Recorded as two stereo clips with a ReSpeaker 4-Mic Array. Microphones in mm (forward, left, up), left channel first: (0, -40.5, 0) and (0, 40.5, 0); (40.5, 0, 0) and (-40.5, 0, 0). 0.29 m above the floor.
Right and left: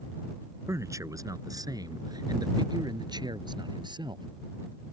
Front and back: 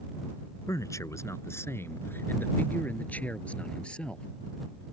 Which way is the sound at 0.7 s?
45° left.